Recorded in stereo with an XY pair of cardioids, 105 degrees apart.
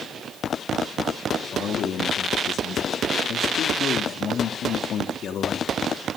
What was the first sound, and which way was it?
A man speaking, 60° left.